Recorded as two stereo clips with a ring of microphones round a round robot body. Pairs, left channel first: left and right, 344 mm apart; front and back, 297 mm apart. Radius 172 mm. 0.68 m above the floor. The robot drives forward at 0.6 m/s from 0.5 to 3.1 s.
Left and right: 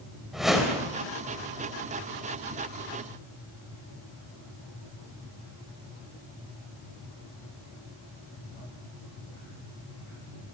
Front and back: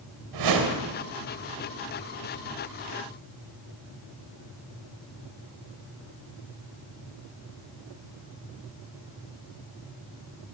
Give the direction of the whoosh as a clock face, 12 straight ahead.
6 o'clock.